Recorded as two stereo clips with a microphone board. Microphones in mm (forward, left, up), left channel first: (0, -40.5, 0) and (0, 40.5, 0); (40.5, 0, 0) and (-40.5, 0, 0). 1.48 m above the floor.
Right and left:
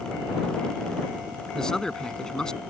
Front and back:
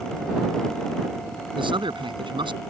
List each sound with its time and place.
1.6 s a man speaking: 170° right